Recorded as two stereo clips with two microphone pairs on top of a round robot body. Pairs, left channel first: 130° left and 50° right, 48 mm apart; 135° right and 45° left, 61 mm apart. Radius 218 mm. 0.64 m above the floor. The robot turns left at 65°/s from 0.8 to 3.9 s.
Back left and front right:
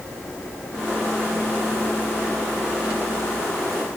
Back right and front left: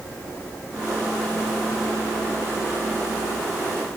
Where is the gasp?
No gasp in this recording.